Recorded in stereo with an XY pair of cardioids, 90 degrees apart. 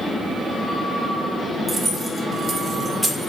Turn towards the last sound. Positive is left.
turn(degrees=0)